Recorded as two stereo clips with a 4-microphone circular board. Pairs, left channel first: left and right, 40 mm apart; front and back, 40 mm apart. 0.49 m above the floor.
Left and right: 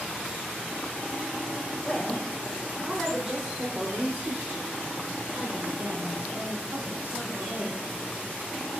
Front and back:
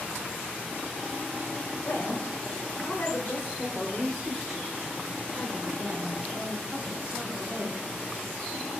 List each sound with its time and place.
1.8 s a woman speaking: straight ahead, 1.9 m; by 7.8 s 135° right, 2.5 m